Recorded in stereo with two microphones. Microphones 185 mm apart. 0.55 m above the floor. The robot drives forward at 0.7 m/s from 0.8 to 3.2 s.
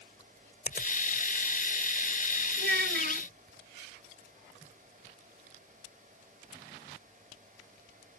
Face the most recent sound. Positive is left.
turn(degrees=-70)  # may be behind; listen again after turning